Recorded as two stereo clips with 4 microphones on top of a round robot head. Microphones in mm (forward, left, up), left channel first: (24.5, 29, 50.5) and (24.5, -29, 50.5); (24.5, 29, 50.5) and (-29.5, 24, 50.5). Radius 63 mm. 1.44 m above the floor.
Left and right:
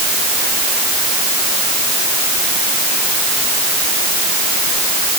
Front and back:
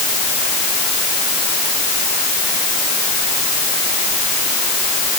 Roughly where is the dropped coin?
I don't hear a dropped coin.